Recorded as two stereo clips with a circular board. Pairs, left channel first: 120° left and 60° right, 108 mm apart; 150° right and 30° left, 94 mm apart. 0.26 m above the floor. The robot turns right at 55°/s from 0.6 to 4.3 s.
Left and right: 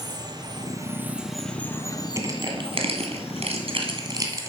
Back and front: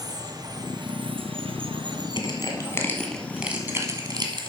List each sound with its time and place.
0.0 s running water: 10° right, 1.0 m; by 4.5 s 170° right, 1.0 m
2.2 s crushing: 120° right, 1.9 m; by 4.5 s straight ahead, 1.9 m